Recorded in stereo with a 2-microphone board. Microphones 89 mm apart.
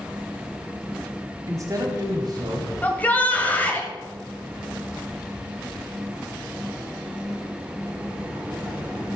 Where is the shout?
20° left (ahead or behind), 1.0 m.